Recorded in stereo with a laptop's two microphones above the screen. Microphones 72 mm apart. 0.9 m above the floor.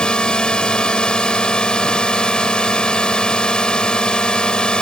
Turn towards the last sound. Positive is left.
turn(degrees=10)  # may be behind; listen again after turning